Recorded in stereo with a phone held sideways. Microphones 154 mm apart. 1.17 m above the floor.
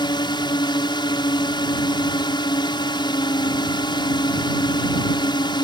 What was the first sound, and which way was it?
A drone, 30° left (ahead or behind).